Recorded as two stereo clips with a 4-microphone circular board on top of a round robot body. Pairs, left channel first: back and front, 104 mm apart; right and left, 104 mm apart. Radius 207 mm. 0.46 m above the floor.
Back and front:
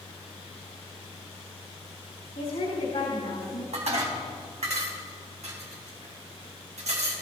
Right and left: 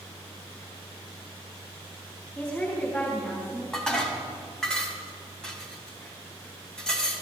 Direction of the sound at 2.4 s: 170° right.